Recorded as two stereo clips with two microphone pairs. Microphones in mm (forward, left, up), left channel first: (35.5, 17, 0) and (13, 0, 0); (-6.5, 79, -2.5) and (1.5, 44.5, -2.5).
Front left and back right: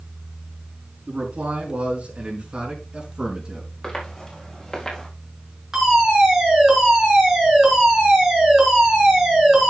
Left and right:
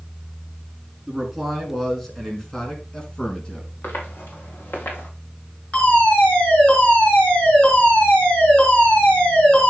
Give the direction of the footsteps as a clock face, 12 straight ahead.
8 o'clock.